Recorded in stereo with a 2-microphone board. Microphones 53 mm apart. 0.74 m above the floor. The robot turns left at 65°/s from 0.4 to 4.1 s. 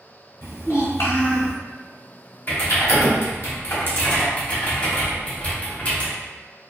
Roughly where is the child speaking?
Left.